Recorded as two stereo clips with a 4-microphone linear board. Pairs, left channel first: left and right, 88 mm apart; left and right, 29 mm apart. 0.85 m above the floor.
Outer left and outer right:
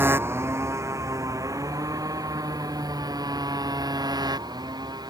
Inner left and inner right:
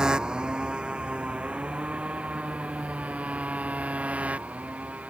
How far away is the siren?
No siren in this recording.